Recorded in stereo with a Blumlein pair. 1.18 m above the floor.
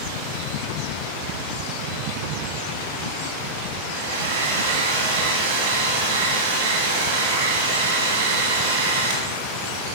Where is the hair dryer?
65° right, 1.5 m.